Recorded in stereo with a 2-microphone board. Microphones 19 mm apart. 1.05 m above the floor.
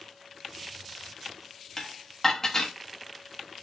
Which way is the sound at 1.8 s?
20° left (ahead or behind).